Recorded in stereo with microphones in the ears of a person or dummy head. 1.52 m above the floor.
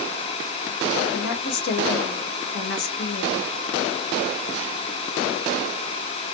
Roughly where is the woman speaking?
Left.